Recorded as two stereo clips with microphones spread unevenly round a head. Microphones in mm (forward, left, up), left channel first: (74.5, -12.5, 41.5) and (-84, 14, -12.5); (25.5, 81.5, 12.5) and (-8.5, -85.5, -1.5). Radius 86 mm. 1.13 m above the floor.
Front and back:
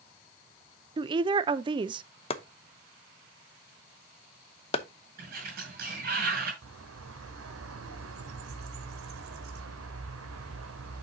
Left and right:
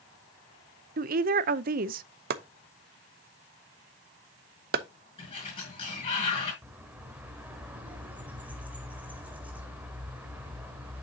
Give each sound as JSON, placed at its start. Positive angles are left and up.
{"t": 1.0, "sound": "a woman speaking", "azimuth_deg": -135, "distance_m": 0.5}
{"t": 2.3, "sound": "chopping", "azimuth_deg": -70, "distance_m": 0.8}
{"t": 5.2, "sound": "a sliding door", "azimuth_deg": 140, "distance_m": 6.0}
{"t": 6.6, "sound": "a bird", "azimuth_deg": 175, "distance_m": 1.4}